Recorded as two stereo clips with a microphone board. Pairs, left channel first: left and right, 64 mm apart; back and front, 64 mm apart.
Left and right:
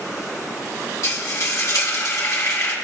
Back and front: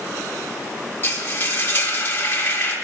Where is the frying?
125° left, 2.5 m.